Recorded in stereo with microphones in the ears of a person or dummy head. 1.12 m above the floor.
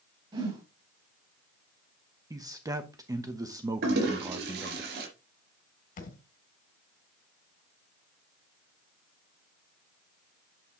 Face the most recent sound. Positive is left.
turn(degrees=55)  # may be behind; listen again after turning